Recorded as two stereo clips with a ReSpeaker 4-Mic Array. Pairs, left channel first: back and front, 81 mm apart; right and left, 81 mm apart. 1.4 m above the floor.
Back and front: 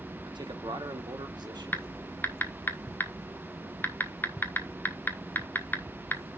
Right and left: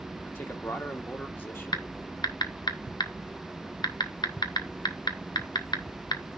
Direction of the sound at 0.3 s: 30° right.